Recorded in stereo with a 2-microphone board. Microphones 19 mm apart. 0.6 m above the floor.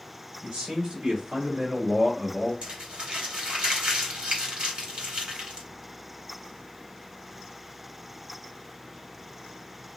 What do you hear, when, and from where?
0.4 s a man speaking: 65° right (ahead or behind), 2 m; by 2.5 s centre (ahead or behind), 1.0 m
2.6 s crumpling: 60° right (ahead or behind), 2 m